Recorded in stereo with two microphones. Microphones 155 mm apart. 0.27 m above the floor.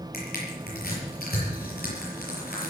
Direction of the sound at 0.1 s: 80° left.